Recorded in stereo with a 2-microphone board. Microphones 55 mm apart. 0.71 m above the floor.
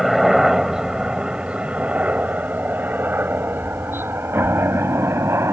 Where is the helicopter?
5° right (ahead or behind); by 5.5 s 55° right (ahead or behind).